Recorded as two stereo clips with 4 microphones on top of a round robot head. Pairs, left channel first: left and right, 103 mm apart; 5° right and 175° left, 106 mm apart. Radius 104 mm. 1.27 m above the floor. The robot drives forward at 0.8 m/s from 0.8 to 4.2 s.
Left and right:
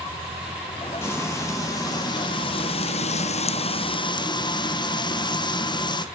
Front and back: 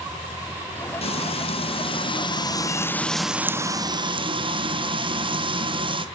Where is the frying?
20° left, 1.9 m; by 6.1 s 135° left, 1.1 m.